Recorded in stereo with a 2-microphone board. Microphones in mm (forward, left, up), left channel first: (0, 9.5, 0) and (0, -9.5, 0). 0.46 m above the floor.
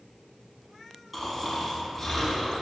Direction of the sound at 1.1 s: 5° right (ahead or behind).